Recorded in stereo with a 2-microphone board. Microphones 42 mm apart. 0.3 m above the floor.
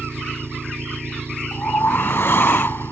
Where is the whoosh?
65° left (ahead or behind).